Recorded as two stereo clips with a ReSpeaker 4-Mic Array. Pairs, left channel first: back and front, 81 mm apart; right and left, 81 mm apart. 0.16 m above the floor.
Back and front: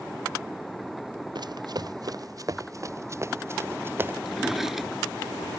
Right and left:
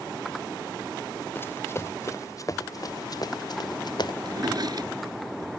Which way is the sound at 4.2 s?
85° left.